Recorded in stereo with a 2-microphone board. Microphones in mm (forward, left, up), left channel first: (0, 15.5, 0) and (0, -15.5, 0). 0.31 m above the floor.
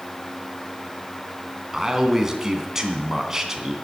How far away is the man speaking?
About 3 m.